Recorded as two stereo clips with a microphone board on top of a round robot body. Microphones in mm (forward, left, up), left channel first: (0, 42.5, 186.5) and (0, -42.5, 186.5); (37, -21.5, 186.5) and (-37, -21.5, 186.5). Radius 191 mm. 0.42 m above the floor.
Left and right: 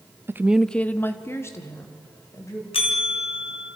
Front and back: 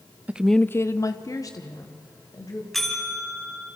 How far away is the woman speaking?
About 0.8 m.